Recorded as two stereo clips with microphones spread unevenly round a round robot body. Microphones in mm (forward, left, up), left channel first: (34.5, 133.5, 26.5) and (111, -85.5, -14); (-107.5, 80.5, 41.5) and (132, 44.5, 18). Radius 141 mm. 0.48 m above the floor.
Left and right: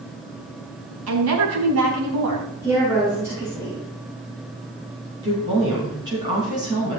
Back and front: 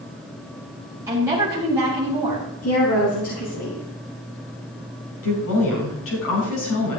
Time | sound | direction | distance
1.1 | a woman speaking | 85° right | 4 m
2.6 | a woman speaking | 150° right | 4 m
5.2 | a woman speaking | 145° right | 4.5 m